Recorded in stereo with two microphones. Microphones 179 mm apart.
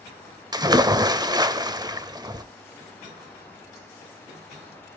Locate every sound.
0.5 s a splash: 20° right (ahead or behind), 0.5 m